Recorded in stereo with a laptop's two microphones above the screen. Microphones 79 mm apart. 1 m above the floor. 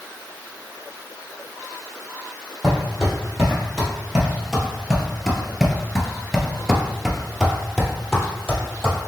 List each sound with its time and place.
2.6 s footsteps: 5° right (ahead or behind), 1.9 m; by 9.0 s 5° left (ahead or behind), 1.9 m